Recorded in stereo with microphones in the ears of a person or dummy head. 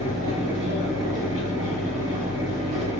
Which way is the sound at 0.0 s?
25° right (ahead or behind).